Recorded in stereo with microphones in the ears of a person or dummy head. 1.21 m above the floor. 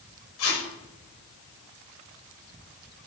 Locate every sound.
0.4 s tape being pulled: 75° left (ahead or behind), 7 m